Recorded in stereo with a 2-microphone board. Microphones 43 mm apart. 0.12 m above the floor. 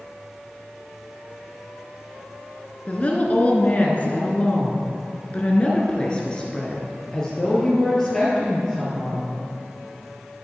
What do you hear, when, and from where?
2.9 s a woman speaking: 35° left (ahead or behind), 1.6 m; by 9.3 s 10° left (ahead or behind), 3 m